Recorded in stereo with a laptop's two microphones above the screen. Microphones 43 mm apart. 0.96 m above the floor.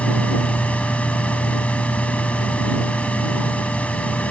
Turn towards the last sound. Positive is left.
turn(degrees=35)  # may be behind; listen again after turning